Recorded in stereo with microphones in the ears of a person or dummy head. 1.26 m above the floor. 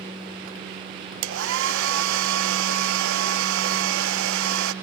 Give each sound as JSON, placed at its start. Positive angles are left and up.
{"t": 1.2, "sound": "a hair dryer", "side_deg": -70, "distance_m": 0.7}